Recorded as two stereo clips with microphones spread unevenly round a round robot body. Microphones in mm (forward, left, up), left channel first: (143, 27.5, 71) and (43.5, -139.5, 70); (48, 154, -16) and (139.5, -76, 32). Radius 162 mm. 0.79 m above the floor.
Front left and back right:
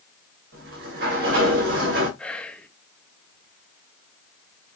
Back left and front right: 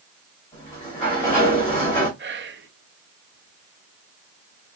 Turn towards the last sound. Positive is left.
turn(degrees=-25)